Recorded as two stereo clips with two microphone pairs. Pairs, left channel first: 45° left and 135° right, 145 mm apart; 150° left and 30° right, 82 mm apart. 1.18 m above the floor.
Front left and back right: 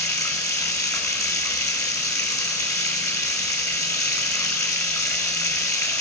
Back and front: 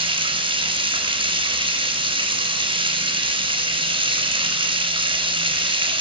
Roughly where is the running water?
Ahead right.